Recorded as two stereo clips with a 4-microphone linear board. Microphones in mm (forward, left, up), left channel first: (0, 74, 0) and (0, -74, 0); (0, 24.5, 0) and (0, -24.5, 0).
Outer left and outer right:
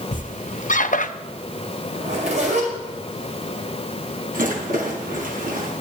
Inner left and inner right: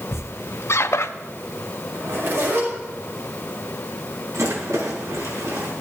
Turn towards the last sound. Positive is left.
turn(degrees=-80)